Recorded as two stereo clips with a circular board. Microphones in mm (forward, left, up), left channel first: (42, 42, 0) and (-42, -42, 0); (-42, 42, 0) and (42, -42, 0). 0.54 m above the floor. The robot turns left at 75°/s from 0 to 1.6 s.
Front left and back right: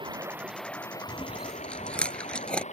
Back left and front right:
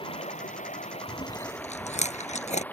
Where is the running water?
Straight behind; by 2.7 s 60° left.